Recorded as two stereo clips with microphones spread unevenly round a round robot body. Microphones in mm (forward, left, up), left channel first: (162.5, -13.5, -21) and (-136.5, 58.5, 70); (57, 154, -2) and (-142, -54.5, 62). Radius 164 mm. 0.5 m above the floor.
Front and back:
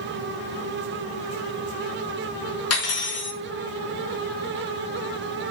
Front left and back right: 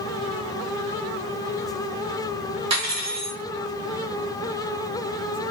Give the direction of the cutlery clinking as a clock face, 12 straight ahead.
2 o'clock.